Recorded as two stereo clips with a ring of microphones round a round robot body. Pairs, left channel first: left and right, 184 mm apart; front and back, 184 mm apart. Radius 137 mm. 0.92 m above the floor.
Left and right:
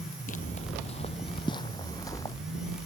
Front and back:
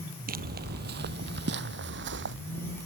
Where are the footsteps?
150° left; by 2.4 s 170° left.